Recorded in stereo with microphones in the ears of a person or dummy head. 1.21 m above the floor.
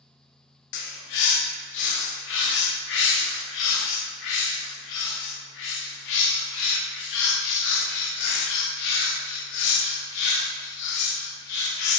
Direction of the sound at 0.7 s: 60° left (ahead or behind).